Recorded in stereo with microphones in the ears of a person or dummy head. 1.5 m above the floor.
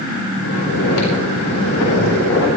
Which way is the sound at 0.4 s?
85° left.